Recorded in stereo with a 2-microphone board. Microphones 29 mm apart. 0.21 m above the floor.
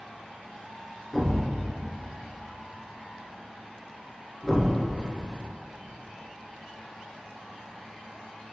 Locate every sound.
1.1 s a thud: 10° left (ahead or behind), 1.5 m